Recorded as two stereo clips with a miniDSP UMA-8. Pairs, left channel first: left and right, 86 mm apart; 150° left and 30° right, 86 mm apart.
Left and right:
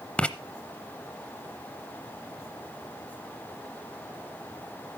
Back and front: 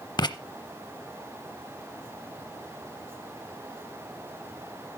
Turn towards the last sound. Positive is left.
turn(degrees=165)